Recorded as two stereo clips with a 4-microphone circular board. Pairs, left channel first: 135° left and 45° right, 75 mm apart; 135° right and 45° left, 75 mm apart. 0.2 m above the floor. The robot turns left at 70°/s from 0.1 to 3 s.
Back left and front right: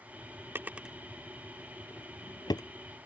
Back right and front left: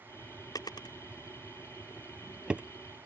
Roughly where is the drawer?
Right.